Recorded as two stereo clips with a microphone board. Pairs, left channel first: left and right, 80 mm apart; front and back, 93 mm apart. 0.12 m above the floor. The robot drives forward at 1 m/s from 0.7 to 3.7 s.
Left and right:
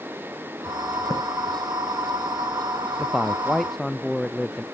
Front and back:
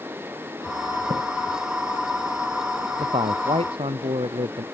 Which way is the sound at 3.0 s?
Straight behind.